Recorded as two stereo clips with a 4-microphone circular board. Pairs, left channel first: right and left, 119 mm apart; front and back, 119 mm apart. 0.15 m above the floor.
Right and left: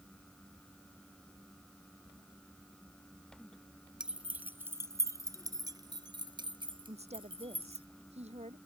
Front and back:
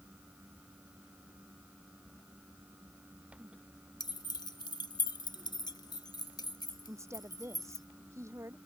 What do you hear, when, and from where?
4.0 s keys jangling: 10° left; by 7.9 s 55° left
6.9 s a woman speaking: 115° left